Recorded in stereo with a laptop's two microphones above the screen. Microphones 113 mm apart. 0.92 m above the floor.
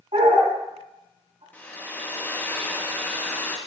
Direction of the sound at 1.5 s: 15° left (ahead or behind).